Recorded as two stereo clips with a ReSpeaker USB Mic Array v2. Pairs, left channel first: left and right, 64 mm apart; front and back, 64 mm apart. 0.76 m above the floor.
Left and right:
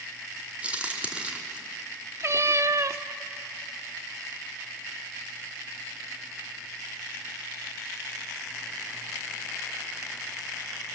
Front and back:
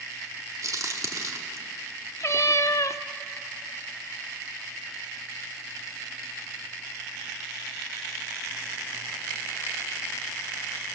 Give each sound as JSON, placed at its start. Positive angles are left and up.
{"t": 0.6, "sound": "a crack", "azimuth_deg": -160, "distance_m": 1.9}
{"t": 2.2, "sound": "a cat meowing", "azimuth_deg": -40, "distance_m": 0.5}